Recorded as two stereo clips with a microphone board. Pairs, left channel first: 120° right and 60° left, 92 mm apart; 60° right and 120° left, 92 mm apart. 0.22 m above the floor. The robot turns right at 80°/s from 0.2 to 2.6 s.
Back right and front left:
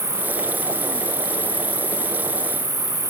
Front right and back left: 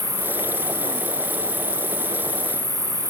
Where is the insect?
60° right, 0.8 m; by 3.1 s 135° left, 0.8 m.